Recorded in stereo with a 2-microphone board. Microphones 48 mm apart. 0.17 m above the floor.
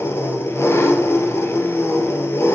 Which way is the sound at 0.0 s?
65° left (ahead or behind).